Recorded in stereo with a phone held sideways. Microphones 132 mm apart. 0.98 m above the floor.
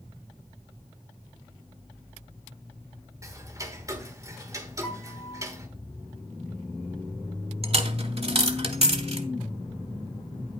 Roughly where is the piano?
Left.